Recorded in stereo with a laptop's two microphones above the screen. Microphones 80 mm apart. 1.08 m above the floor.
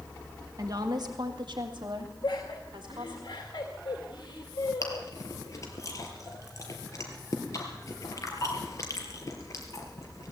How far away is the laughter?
About 2 m.